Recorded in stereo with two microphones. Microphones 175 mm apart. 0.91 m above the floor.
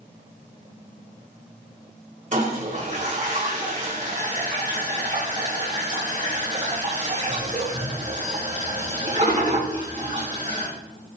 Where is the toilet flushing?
45° right (ahead or behind), 4.5 m.